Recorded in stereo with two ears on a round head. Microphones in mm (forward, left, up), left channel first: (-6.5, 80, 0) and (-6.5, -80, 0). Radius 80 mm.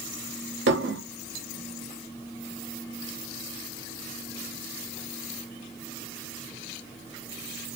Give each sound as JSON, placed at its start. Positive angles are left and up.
{"t": 0.7, "sound": "dishes clattering", "side_deg": -65, "distance_m": 0.9}